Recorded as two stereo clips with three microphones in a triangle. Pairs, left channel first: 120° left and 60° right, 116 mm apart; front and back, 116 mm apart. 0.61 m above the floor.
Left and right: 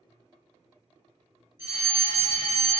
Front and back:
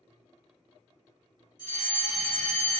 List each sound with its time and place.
1.6 s a fire alarm: 5° right, 1.8 m